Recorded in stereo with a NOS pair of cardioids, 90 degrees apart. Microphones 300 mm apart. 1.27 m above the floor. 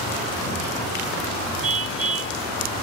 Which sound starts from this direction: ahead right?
A car horn, at 1.6 s.